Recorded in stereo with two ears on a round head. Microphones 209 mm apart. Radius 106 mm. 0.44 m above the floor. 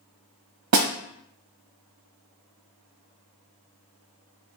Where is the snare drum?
75° right (ahead or behind), 1.1 m.